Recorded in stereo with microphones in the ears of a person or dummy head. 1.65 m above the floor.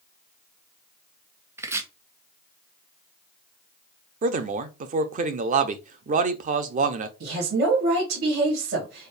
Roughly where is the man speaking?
Right.